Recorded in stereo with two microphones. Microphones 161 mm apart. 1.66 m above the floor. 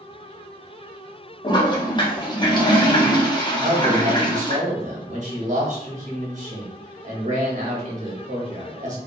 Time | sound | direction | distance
1.4 | a toilet flushing | 30° left (ahead or behind) | 0.6 m
3.6 | a man speaking | 50° right (ahead or behind) | 0.9 m